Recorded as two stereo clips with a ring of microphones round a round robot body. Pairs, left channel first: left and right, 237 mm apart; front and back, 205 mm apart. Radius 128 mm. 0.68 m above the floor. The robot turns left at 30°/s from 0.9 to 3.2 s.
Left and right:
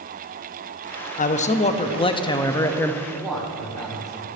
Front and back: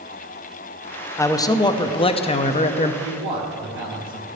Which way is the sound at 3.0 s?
175° right.